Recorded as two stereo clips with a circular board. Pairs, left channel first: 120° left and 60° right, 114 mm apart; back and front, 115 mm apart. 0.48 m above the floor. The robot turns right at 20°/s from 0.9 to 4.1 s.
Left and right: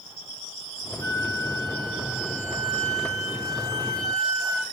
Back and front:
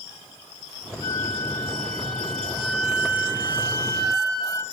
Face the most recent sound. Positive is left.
turn(degrees=-60)